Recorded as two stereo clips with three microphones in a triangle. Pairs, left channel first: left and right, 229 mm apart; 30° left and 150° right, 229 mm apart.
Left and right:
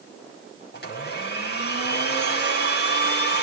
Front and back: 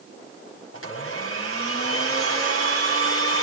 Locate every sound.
0.7 s a blender: 50° left, 6 m